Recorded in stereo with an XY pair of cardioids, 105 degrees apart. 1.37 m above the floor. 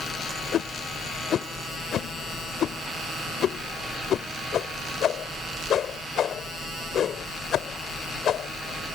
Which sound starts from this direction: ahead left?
A whoosh, at 0.5 s.